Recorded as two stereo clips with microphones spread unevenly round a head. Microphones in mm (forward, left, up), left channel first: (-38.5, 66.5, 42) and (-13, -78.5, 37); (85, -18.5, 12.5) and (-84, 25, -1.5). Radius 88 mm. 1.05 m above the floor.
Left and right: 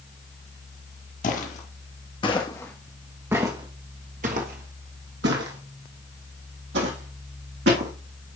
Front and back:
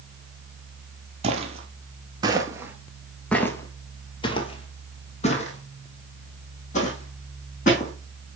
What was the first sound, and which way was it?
Footsteps, 115° left.